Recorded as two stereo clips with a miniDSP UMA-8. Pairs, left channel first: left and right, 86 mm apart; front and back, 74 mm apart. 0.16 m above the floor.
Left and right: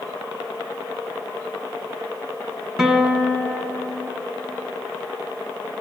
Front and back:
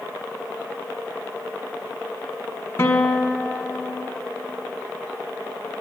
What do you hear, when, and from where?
2.8 s a guitar: 15° right, 1.3 m